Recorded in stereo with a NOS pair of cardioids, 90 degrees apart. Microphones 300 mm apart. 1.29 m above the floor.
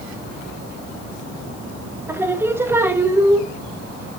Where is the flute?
No flute in this recording.